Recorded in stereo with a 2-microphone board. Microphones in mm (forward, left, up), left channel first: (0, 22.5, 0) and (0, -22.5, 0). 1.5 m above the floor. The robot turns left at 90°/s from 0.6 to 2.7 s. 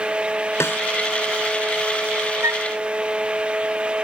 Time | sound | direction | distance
0.6 | a snare drum | 75° left (ahead or behind) | ?
2.4 | a flute | 75° right (ahead or behind) | ?